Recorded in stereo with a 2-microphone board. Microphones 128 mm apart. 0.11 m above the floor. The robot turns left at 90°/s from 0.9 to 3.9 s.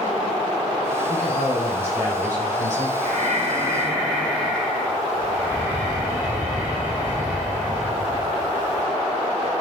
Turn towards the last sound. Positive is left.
turn(degrees=-165)